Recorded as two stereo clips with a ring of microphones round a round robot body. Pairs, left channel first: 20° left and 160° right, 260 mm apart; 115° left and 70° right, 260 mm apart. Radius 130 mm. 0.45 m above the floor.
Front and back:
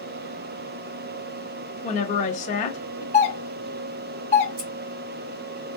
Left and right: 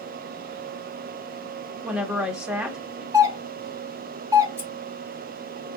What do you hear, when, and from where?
1.8 s a woman speaking: 15° left, 0.8 m
3.1 s a doorbell: 5° right, 1.4 m
4.6 s scissors: 150° right, 2.5 m